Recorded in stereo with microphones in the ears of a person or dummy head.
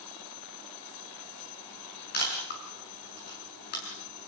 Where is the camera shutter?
55° left (ahead or behind), 6.5 m.